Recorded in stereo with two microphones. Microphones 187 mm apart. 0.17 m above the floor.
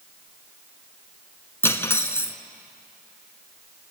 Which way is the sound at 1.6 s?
15° left (ahead or behind).